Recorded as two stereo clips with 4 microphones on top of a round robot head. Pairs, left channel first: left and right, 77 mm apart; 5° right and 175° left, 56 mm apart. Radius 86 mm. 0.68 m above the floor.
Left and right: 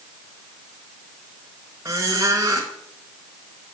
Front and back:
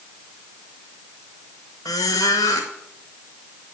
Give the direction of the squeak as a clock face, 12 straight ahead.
1 o'clock.